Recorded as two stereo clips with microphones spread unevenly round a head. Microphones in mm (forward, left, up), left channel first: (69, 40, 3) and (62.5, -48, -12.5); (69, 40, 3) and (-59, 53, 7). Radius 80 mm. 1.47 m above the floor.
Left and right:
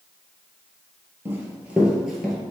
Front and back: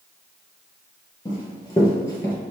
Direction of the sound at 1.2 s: 40° right.